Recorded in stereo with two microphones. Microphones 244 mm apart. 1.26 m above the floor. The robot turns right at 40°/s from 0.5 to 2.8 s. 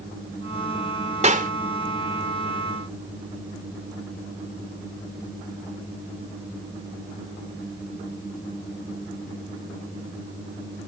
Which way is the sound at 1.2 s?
30° right (ahead or behind).